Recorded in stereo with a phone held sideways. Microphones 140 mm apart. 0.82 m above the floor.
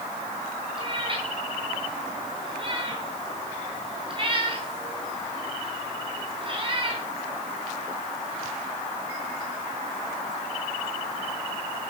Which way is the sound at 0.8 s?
40° right (ahead or behind).